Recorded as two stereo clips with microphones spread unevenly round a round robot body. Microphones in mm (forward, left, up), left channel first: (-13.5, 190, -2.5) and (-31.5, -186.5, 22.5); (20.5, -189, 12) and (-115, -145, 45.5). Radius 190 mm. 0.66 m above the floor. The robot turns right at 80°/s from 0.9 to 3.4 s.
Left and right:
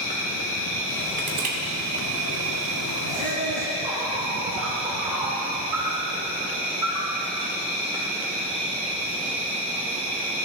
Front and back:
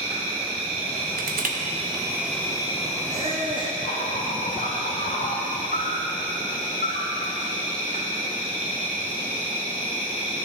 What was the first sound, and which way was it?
An insect, 145° left.